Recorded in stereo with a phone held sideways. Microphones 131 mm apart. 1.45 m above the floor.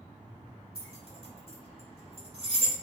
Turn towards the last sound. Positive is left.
turn(degrees=-45)  # may be behind; listen again after turning